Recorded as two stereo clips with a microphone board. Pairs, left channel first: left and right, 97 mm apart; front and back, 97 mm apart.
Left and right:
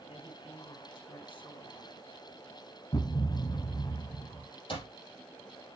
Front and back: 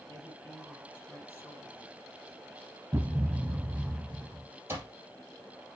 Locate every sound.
0.1 s a woman speaking: 65° left, 4.5 m
2.9 s a thud: 135° left, 0.9 m
4.7 s an alarm clock: 115° left, 3.5 m